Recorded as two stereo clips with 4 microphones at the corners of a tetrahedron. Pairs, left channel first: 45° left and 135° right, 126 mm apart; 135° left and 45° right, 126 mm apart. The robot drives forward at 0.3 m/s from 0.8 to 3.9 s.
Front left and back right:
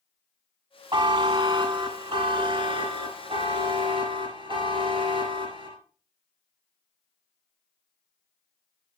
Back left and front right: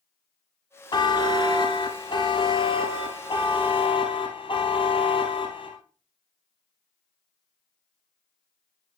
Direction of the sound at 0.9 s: Straight behind.